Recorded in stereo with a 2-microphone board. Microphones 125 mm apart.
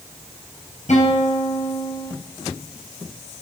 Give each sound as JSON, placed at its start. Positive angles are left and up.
{"t": 0.9, "sound": "a guitar", "side_deg": 65, "distance_m": 4.0}